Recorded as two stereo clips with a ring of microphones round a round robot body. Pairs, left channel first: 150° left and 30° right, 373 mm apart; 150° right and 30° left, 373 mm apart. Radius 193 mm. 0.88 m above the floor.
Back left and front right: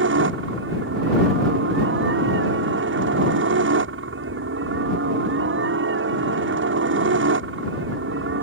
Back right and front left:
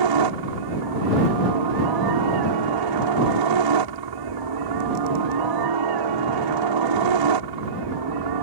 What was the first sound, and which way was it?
A helicopter, 25° left.